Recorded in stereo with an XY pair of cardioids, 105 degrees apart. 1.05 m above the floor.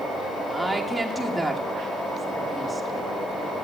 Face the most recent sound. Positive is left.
turn(degrees=-5)